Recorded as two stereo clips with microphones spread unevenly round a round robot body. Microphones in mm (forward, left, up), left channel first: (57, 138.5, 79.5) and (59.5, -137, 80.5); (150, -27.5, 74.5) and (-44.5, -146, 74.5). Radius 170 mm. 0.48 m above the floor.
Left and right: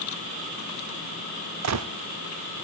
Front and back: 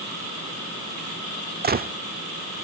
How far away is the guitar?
I don't hear a guitar.